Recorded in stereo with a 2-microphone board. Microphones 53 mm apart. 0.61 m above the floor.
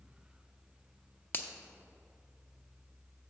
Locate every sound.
1.3 s a finger snap: 35° left (ahead or behind), 0.6 m